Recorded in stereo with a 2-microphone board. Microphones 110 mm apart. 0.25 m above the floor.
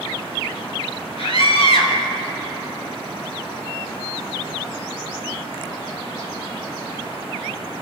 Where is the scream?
65° left (ahead or behind), 4 m.